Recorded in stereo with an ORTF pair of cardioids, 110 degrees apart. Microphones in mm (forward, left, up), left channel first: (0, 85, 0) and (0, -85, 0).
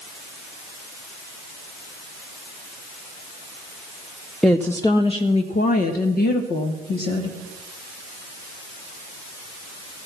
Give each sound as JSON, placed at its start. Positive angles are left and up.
{"t": 4.4, "sound": "a woman speaking", "azimuth_deg": 0, "distance_m": 0.7}